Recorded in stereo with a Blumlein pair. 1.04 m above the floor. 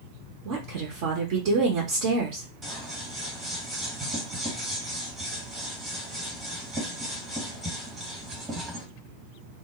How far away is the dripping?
No dripping in this recording.